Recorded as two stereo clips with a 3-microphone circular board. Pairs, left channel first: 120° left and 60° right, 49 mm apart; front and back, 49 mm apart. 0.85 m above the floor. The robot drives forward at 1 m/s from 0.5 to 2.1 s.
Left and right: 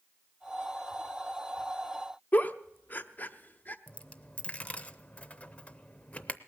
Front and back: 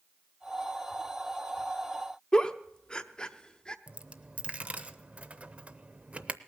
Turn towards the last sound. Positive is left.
turn(degrees=155)